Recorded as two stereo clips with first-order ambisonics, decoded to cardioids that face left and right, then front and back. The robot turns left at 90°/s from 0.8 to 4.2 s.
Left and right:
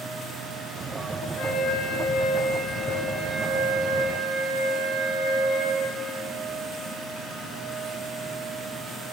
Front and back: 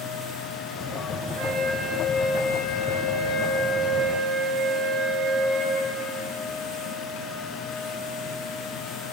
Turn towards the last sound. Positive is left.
turn(degrees=-110)